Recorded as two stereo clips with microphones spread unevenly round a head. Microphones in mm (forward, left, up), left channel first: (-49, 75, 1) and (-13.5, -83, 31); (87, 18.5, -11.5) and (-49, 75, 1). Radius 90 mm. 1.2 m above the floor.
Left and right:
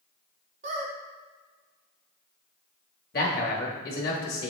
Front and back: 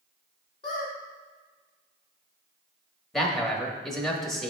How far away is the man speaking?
About 1.4 m.